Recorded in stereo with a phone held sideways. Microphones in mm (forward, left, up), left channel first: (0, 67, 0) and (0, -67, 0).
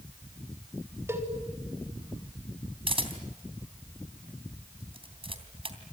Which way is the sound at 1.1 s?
20° right (ahead or behind).